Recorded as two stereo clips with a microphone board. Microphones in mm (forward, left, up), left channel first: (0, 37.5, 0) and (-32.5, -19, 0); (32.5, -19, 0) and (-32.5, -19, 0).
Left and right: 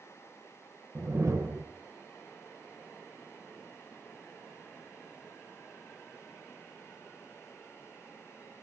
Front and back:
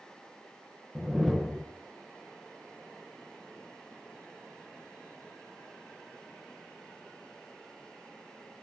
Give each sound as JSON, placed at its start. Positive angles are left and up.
{"t": 0.9, "sound": "a whoosh", "azimuth_deg": -90, "distance_m": 0.9}